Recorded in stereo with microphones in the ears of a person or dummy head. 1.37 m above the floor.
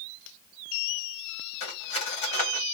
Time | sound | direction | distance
1.6 | cutlery clinking | 30° left (ahead or behind) | 1.5 m